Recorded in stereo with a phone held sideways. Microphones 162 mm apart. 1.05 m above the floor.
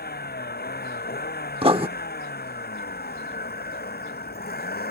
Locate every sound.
0.0 s a vehicle: 85° left; by 4.9 s 80° left
1.6 s writing: 35° right (ahead or behind)